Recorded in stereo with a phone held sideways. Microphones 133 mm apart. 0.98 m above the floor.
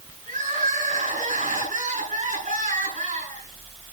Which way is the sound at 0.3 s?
85° right.